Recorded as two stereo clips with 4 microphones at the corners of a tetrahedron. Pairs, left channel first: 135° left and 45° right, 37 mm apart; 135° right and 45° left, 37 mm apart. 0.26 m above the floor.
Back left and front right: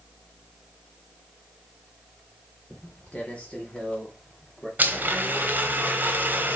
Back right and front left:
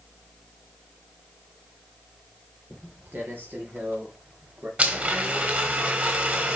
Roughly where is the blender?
Ahead.